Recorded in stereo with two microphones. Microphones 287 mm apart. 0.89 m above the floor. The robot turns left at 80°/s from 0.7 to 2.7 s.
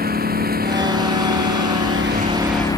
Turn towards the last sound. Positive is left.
turn(degrees=170)